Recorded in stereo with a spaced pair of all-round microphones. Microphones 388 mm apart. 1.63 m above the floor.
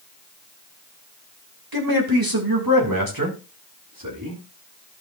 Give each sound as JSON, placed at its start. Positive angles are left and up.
{"t": 1.7, "sound": "a man speaking", "side_deg": -65, "distance_m": 3.0}